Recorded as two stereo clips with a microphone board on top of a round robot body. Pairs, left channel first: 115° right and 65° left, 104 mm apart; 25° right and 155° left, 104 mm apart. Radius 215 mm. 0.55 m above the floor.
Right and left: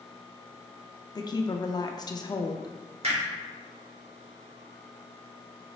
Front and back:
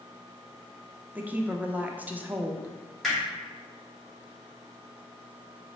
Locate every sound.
1.1 s a woman speaking: 135° right, 0.7 m
3.0 s hammering: 65° left, 1.8 m